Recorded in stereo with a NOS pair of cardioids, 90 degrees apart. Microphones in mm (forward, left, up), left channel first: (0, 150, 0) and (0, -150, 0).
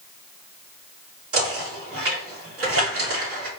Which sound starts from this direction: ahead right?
Knocking, at 1.3 s.